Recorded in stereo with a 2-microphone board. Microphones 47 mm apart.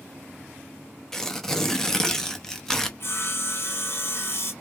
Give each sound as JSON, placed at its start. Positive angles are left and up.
{"t": 1.1, "sound": "tearing paper", "side_deg": 10, "distance_m": 0.8}
{"t": 3.0, "sound": "sawing", "side_deg": 50, "distance_m": 1.2}